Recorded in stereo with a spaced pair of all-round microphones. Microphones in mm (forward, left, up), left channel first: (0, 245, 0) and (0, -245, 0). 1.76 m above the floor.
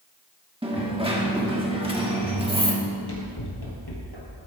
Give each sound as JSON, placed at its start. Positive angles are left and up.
{"t": 0.6, "sound": "a dropped coin", "side_deg": -10, "distance_m": 1.4}
{"t": 2.8, "sound": "running footsteps", "side_deg": 55, "distance_m": 3.5}